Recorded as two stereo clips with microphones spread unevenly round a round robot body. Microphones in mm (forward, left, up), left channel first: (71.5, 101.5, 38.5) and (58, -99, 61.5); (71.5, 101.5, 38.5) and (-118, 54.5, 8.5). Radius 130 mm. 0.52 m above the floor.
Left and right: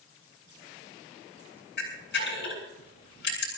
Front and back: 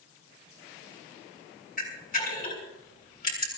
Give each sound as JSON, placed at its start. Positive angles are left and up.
{"t": 1.8, "sound": "a camera shutter", "azimuth_deg": 55, "distance_m": 7.5}